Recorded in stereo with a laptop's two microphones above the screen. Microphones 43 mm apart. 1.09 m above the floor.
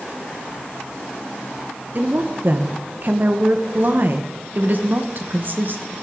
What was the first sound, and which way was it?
A woman speaking, 50° right (ahead or behind).